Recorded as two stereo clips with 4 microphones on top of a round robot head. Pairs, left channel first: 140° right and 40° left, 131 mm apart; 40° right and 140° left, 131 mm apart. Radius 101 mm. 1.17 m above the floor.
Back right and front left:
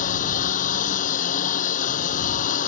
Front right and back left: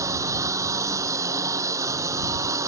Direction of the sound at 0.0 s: 155° right.